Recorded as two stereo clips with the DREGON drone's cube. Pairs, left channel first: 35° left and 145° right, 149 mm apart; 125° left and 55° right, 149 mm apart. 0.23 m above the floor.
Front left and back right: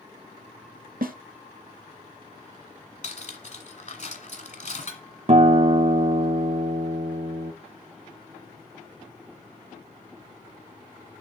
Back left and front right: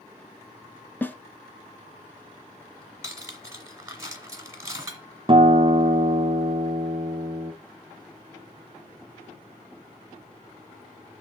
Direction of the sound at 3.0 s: 15° left.